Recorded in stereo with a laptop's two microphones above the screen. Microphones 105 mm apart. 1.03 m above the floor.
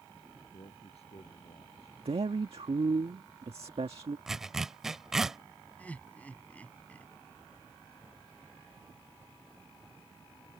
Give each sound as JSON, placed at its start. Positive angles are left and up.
{"t": 0.5, "sound": "a man speaking", "side_deg": 80}
{"t": 2.0, "sound": "a man speaking", "side_deg": -70}
{"t": 4.3, "sound": "a zipper", "side_deg": -5}
{"t": 5.8, "sound": "laughter", "side_deg": 15}